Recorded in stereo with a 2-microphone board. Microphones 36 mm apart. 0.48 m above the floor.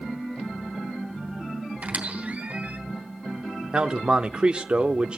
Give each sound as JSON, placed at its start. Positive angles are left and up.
{"t": 1.8, "sound": "a squeak", "side_deg": -45, "distance_m": 3.0}
{"t": 3.7, "sound": "a man speaking", "side_deg": -30, "distance_m": 0.7}